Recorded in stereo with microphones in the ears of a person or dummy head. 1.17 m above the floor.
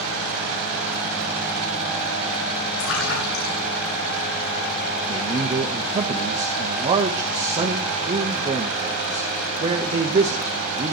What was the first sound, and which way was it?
A splash, 75° left (ahead or behind).